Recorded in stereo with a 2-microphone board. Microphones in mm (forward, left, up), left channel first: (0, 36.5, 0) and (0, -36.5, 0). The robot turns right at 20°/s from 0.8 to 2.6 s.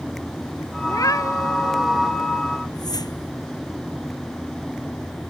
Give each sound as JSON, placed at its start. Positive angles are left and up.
{"t": 0.8, "sound": "a cat meowing", "side_deg": 55}
{"t": 2.7, "sound": "a whoosh", "side_deg": 65}